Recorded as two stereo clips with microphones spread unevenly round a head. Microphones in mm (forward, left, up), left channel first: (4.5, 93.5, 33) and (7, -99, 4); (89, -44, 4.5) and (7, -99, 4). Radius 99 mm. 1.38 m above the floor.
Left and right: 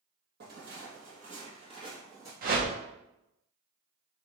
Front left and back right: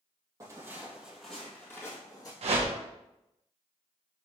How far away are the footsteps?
About 1.7 m.